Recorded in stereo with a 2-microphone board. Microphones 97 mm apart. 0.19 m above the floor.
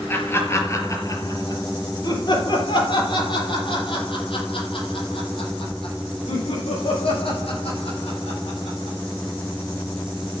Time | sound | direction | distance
0.1 | laughter | 20° left (ahead or behind) | 3.5 m